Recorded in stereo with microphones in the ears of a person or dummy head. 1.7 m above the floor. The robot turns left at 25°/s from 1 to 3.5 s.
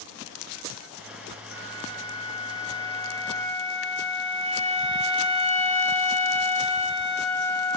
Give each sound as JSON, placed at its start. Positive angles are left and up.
{"t": 1.5, "sound": "a flute", "azimuth_deg": -75, "distance_m": 3.5}